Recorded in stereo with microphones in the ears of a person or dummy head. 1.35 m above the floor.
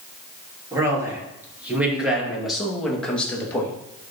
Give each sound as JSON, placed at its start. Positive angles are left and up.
{"t": 0.7, "sound": "a man speaking", "side_deg": -15, "distance_m": 3.0}